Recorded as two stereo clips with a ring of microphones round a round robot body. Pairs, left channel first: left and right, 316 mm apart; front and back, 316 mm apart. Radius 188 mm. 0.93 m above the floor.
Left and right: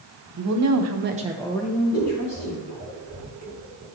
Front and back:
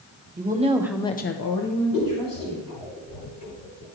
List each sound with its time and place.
0.4 s a woman speaking: 120° right, 1.4 m; by 2.7 s 35° left, 2.5 m
1.9 s scissors: 15° right, 2 m